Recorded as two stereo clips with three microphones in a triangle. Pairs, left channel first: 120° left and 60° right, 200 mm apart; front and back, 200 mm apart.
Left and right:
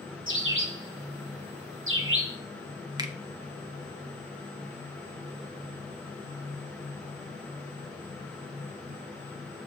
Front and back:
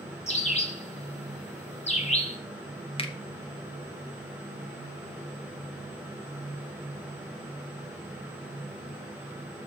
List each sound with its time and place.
0.3 s a bird: 55° right, 1.4 m
3.0 s a finger snap: 15° right, 1.0 m